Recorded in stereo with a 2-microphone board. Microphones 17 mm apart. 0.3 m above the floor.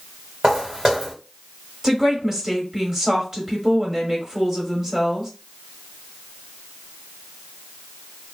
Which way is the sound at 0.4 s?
40° right (ahead or behind).